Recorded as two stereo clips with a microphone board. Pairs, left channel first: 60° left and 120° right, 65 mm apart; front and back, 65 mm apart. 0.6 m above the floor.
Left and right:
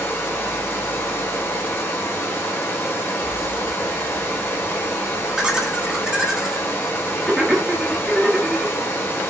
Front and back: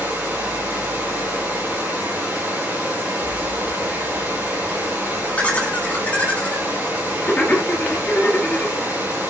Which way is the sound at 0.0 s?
120° left.